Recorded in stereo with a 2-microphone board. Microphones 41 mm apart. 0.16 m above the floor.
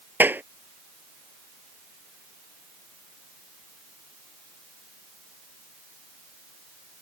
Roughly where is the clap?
Right.